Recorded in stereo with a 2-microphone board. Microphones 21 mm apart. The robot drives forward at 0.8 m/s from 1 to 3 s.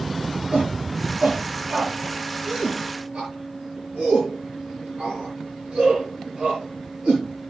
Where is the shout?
70° right (ahead or behind), 6 m; by 7.5 s 75° right (ahead or behind), 5.5 m.